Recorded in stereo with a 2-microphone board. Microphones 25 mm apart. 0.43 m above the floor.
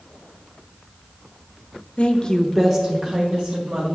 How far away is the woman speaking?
About 1.0 m.